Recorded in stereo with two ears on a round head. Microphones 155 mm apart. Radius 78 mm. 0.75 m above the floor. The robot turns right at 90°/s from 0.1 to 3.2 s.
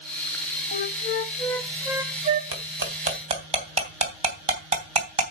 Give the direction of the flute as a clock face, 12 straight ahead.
9 o'clock.